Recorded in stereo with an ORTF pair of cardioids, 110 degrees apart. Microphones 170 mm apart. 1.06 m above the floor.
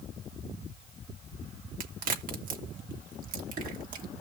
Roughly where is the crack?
Ahead right.